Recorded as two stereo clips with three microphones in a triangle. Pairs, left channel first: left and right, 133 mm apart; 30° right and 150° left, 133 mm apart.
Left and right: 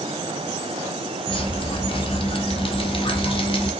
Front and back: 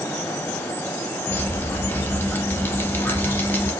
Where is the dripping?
45° left, 0.6 m.